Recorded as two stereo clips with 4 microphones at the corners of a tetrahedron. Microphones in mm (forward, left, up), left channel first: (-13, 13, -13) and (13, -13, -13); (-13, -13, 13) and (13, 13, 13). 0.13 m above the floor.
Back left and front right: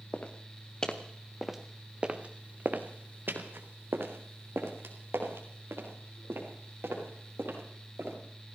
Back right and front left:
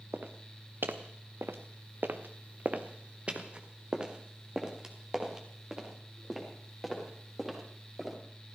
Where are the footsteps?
80° left, 1.7 m; by 8.2 s 40° right, 6 m.